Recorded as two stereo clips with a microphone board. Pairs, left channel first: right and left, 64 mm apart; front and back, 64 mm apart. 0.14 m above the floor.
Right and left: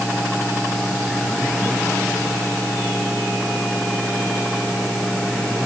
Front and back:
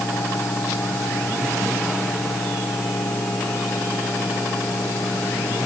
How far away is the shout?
No shout in this recording.